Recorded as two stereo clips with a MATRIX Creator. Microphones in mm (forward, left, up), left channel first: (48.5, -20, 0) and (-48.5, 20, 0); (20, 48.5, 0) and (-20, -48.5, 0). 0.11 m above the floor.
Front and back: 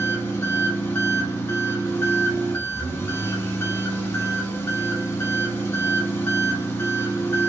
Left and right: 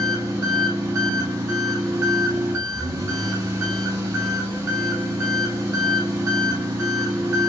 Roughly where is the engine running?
Right.